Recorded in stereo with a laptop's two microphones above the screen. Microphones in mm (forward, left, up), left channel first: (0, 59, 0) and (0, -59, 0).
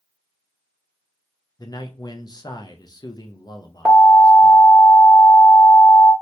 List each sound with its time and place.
1.6 s a man speaking: 35° left (ahead or behind), 0.5 m
3.9 s an alarm: 15° right (ahead or behind), 1.6 m